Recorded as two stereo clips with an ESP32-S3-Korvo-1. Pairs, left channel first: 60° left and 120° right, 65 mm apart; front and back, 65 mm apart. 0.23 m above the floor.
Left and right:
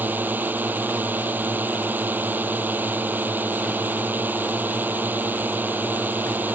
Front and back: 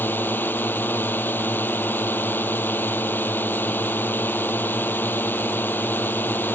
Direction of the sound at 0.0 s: 60° right.